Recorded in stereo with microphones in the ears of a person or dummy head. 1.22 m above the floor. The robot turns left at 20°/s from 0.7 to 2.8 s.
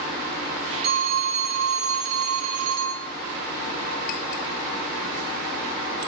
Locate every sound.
0.8 s a phone ringing: 50° right, 1.9 m; by 3.1 s 85° right, 1.9 m